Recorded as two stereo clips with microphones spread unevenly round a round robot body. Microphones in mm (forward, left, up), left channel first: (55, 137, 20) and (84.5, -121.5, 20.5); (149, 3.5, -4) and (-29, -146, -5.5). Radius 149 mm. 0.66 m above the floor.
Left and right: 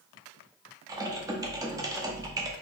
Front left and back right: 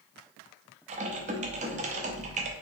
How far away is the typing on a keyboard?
About 0.5 m.